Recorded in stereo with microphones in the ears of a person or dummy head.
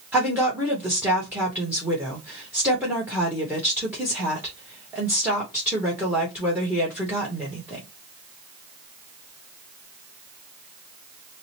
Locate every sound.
0.1 s a woman speaking: 10° right (ahead or behind), 1.0 m